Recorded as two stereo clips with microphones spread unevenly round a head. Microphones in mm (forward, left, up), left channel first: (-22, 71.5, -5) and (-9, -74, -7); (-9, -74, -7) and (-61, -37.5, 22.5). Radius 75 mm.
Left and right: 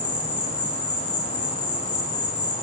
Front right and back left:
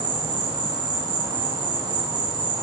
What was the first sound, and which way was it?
An insect, 135° left.